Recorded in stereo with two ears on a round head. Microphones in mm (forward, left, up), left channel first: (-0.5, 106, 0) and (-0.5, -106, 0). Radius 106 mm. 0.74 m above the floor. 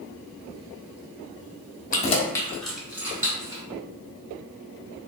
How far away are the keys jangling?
About 0.7 m.